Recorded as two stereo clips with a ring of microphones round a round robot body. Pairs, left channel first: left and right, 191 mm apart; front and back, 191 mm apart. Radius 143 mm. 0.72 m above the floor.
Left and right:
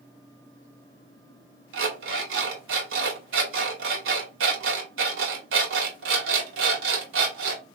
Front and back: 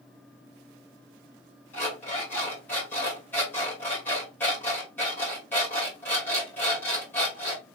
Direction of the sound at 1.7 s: 85° right.